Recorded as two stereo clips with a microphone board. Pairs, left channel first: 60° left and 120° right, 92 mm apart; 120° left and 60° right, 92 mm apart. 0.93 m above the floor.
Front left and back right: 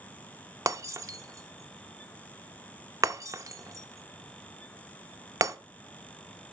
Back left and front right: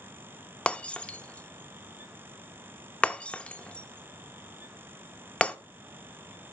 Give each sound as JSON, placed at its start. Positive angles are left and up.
{"t": 0.7, "sound": "breaking glass", "azimuth_deg": -165, "distance_m": 0.6}